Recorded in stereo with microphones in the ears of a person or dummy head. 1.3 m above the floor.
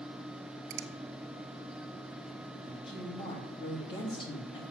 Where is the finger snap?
60° right (ahead or behind), 0.8 m.